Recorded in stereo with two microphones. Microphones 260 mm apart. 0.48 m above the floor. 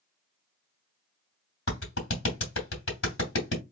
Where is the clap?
55° left (ahead or behind), 2.5 m.